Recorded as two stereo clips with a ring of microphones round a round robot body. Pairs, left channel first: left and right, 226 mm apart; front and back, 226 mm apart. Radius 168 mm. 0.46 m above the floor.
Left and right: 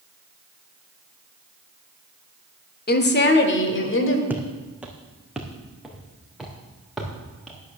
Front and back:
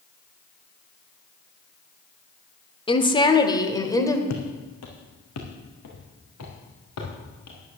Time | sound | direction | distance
2.9 | a woman speaking | 60° left | 1.7 m
4.3 | footsteps | 5° right | 2.5 m